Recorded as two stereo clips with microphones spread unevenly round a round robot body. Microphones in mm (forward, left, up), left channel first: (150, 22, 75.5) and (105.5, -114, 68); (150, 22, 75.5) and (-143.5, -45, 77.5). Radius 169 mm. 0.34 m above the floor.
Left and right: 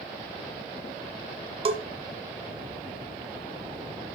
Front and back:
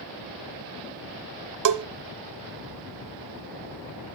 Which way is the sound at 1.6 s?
155° right.